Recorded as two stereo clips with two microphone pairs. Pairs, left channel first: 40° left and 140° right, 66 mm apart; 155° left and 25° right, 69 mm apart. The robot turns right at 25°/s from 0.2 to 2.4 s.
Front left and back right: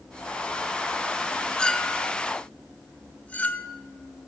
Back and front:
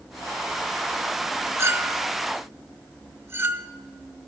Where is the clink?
20° right, 0.5 m; by 3.7 s straight ahead, 0.5 m.